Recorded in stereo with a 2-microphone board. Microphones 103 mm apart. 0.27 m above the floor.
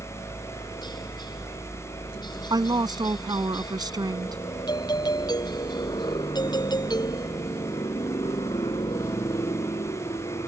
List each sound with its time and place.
0.0 s a helicopter: 45° left (ahead or behind); by 10.5 s 50° left (ahead or behind)
2.5 s a woman speaking: 45° right (ahead or behind)
4.7 s a doorbell: 45° left (ahead or behind)